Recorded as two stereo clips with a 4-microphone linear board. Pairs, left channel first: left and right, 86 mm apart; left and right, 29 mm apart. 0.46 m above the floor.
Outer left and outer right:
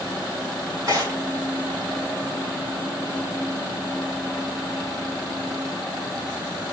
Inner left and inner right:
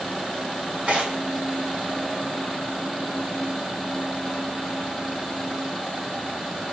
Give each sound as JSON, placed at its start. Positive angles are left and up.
{"t": 0.9, "sound": "tearing paper", "side_deg": -50, "distance_m": 2.0}